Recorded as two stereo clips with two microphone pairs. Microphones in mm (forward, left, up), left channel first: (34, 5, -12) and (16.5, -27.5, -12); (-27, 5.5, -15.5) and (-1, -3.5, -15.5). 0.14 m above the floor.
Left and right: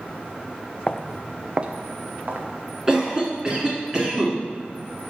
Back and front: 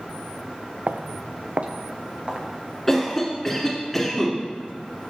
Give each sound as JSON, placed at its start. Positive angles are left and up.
{"t": 0.9, "sound": "footsteps", "azimuth_deg": 0, "distance_m": 0.5}
{"t": 2.9, "sound": "a cough", "azimuth_deg": -140, "distance_m": 1.7}